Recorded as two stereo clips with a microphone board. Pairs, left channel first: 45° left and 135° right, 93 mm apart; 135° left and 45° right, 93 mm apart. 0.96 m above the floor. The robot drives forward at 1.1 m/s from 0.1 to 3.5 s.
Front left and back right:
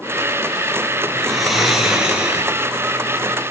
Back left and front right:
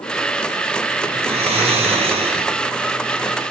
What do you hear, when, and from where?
1.1 s snoring: 40° right, 5 m; by 2.5 s 55° right, 4 m